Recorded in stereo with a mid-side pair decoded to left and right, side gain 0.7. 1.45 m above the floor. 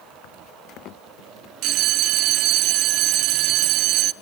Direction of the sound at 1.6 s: 60° right.